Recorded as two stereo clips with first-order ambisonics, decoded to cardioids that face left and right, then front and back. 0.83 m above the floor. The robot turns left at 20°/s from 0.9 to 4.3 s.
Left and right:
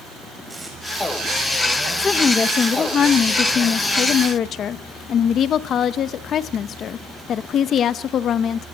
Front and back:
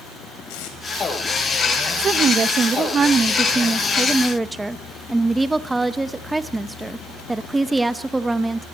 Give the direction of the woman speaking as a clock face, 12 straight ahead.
7 o'clock.